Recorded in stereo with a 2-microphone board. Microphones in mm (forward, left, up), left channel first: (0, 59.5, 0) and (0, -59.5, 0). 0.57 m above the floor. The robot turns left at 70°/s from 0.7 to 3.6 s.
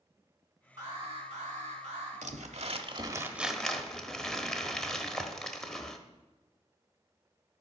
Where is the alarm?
30° right, 4 m; by 2.1 s 125° right, 4 m.